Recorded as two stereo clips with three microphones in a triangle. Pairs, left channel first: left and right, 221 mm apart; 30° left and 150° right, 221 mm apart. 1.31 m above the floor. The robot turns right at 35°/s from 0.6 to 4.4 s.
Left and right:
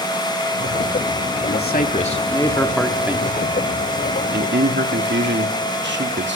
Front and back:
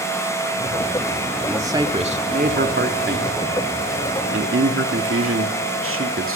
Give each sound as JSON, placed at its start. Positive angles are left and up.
{"t": 1.5, "sound": "a man speaking", "azimuth_deg": 130, "distance_m": 2.5}